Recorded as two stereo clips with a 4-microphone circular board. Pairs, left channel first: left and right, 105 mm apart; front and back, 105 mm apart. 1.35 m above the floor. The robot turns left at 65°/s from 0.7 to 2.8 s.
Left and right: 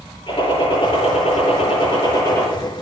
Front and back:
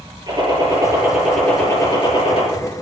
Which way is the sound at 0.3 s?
130° left.